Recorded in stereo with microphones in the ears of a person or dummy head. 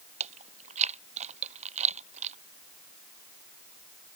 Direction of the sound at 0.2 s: 30° right (ahead or behind).